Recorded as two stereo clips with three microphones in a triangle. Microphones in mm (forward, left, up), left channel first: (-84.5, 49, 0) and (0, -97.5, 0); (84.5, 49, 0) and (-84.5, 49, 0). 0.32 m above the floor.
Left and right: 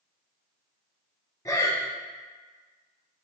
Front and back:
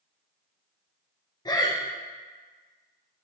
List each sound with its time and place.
1.4 s breathing: 60° left, 0.5 m